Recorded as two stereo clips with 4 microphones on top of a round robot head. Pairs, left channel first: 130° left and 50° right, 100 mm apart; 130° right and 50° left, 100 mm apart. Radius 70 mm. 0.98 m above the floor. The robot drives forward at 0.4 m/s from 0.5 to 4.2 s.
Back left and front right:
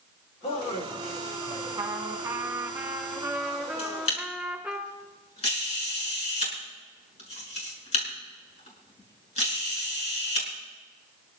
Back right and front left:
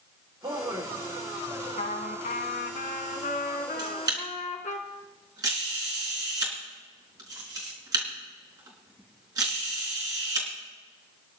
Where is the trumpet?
110° right, 2 m; by 4.8 s 135° right, 2.5 m.